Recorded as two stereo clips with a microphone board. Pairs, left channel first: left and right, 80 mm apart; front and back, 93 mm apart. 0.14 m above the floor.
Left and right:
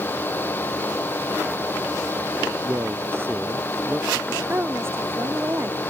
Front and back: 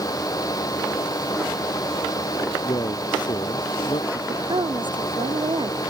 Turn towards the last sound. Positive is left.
turn(degrees=-150)